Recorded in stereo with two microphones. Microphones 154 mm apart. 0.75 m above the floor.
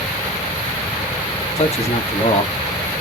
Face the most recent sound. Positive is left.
turn(degrees=45)  # may be behind; listen again after turning